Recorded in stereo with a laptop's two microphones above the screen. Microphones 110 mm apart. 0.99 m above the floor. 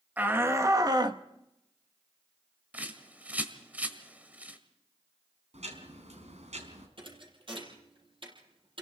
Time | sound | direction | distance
0.2 | a shout | 15° right (ahead or behind) | 1.3 m
2.7 | a bird | 15° right (ahead or behind) | 1.7 m
5.5 | ticking | 80° right | 4 m
7.0 | a thud | 50° right (ahead or behind) | 6.5 m